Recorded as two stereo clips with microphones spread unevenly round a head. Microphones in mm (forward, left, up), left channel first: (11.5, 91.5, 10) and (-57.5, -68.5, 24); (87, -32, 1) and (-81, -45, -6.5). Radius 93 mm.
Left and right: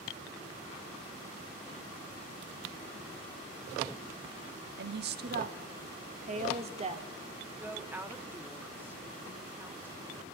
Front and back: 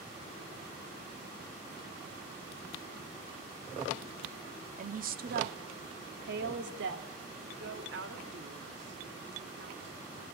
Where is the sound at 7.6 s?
165° left, 2.5 m.